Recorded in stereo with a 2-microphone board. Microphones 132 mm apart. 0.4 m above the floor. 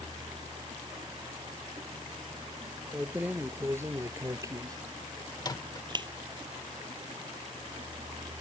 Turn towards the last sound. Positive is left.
turn(degrees=30)  # may be behind; listen again after turning